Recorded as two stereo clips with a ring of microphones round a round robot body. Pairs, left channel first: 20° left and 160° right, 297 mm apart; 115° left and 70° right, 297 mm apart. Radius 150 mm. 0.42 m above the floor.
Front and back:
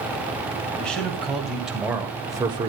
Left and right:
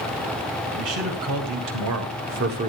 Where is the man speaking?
65° right, 3.5 m; by 2.7 s 105° right, 1.3 m.